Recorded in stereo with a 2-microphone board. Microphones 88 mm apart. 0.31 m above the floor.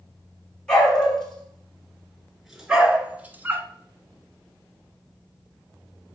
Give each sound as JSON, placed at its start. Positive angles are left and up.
{"t": 0.7, "sound": "a dog barking", "side_deg": 10, "distance_m": 2.0}